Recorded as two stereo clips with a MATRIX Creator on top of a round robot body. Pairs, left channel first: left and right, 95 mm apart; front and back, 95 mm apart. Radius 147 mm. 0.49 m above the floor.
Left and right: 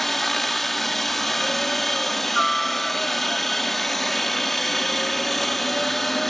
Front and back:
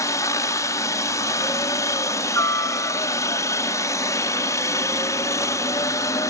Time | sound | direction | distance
0.0 | a helicopter | 5° left | ?